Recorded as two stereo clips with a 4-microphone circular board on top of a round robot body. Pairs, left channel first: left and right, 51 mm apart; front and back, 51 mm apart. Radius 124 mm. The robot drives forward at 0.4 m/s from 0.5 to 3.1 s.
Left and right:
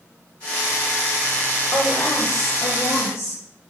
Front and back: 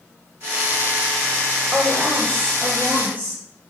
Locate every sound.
1.7 s a woman speaking: 115° left, 2.5 m; by 3.4 s 125° left, 3 m